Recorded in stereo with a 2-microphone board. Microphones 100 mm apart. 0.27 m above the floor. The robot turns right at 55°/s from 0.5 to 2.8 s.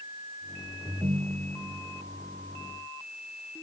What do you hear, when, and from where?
0.8 s a ringtone: 135° right; by 1.8 s 85° right